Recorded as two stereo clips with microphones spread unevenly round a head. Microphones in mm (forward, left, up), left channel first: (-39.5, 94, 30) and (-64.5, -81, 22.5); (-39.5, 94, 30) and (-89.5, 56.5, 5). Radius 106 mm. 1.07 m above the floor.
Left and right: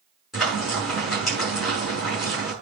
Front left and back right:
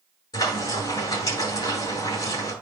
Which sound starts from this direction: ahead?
Frying, at 0.3 s.